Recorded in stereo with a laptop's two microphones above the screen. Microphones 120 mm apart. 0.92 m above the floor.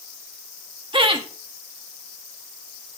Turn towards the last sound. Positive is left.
turn(degrees=-45)  # may be behind; listen again after turning